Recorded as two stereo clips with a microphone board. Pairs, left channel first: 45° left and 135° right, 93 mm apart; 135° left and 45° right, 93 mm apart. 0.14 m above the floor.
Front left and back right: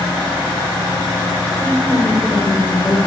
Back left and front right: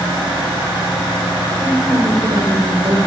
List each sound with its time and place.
1.6 s a woman speaking: 20° right, 3 m